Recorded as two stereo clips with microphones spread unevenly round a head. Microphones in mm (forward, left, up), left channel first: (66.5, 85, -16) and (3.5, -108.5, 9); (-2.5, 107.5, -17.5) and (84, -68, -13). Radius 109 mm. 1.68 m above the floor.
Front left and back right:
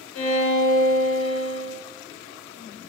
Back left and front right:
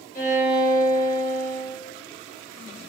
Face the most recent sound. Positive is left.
turn(degrees=75)